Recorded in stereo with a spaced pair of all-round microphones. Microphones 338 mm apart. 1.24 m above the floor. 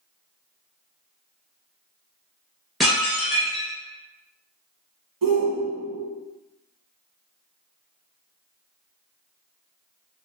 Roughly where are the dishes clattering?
Centre.